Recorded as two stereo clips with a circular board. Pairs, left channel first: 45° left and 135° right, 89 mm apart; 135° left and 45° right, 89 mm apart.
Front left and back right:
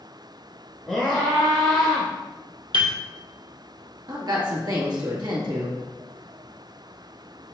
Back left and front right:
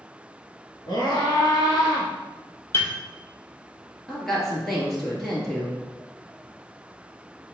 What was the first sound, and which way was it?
A scream, 130° left.